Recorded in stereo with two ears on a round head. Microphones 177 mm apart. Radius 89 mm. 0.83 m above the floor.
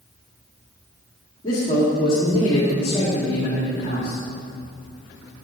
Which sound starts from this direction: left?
A man speaking, at 1.4 s.